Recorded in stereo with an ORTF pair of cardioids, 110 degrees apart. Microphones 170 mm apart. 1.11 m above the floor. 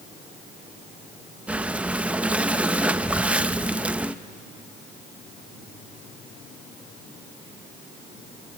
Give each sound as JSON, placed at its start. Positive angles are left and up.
{"t": 1.5, "sound": "breathing", "azimuth_deg": -10, "distance_m": 0.5}